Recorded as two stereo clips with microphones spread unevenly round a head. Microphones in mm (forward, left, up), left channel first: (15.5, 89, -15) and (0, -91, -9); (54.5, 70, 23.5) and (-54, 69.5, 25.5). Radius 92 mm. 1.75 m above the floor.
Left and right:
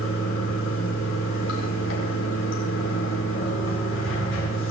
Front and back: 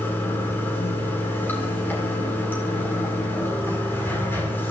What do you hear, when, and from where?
0.0 s running water: 70° left, 7.5 m